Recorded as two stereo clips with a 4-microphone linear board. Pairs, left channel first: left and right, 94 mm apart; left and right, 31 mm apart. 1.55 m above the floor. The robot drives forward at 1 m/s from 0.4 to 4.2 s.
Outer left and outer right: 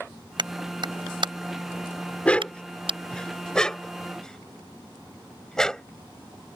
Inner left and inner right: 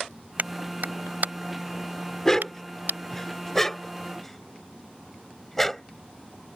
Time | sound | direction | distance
0.4 | a clap | 55° right (ahead or behind) | ?
2.2 | a dog barking | 15° left (ahead or behind) | ?